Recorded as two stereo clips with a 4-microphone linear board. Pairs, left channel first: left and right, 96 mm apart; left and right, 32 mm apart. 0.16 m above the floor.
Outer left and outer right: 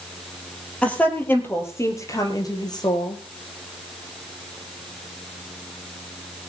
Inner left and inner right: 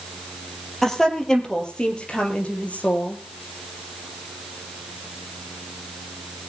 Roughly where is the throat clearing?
I don't hear throat clearing.